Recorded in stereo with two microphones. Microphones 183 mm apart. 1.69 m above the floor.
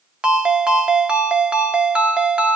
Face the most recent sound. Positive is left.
turn(degrees=-5)  # may be behind; listen again after turning